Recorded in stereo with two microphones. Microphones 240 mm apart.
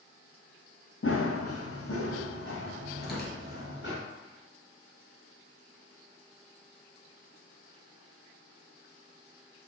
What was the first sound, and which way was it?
Running footsteps, 60° left (ahead or behind).